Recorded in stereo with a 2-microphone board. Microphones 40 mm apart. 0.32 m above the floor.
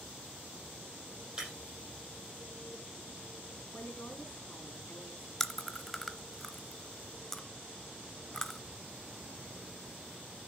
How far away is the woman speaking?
About 3 m.